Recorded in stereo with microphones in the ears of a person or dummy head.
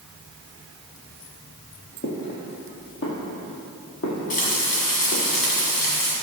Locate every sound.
2.0 s footsteps: 55° left (ahead or behind), 2.5 m; by 5.2 s 65° left (ahead or behind), 3.5 m
4.3 s frying: 45° left (ahead or behind), 2 m